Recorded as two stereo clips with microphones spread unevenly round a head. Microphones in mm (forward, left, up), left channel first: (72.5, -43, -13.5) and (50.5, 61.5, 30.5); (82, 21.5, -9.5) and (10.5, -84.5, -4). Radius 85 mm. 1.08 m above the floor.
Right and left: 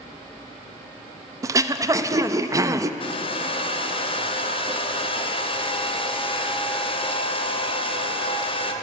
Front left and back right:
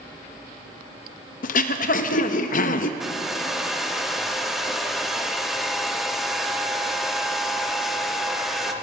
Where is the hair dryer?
35° right, 1.1 m.